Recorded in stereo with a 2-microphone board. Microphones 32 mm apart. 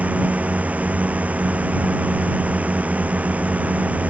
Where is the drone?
50° right (ahead or behind).